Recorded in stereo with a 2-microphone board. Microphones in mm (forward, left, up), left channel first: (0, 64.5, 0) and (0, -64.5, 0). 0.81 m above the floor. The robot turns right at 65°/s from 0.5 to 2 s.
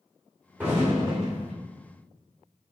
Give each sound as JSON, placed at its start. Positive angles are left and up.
{"t": 0.6, "sound": "an explosion", "azimuth_deg": -165, "distance_m": 1.9}